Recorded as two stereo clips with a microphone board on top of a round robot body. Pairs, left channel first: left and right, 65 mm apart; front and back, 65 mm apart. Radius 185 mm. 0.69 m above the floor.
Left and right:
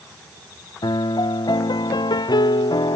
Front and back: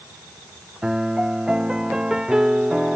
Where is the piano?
100° left.